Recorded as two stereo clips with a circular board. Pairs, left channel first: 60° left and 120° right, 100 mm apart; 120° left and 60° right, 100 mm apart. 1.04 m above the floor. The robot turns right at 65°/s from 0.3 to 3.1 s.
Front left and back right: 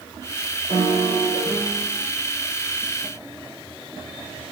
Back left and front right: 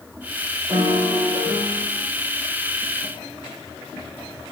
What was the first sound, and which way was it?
A piano, 115° right.